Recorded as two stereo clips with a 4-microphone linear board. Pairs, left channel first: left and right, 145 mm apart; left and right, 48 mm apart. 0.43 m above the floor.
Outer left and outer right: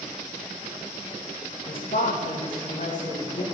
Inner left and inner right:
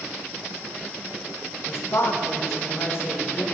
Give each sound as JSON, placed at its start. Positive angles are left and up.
{"t": 1.7, "sound": "a woman speaking", "side_deg": 60, "distance_m": 2.0}